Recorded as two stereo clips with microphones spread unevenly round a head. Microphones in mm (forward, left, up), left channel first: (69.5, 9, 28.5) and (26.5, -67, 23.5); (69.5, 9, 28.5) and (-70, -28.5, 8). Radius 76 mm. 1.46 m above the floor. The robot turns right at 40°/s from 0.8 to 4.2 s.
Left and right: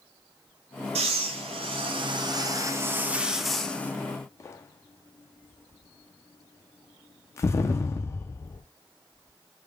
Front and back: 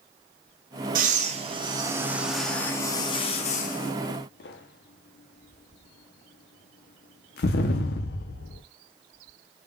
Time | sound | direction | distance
0.9 | breathing | 130° right | 0.6 m